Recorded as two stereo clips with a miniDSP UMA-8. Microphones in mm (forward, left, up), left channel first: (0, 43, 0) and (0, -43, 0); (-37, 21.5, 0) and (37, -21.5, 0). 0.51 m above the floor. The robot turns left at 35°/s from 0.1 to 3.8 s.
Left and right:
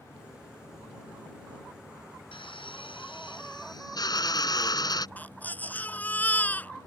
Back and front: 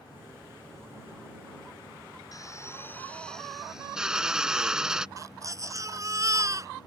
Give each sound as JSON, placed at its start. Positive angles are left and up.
{"t": 2.3, "sound": "a drill", "azimuth_deg": 105}
{"t": 5.2, "sound": "a baby crying", "azimuth_deg": 20}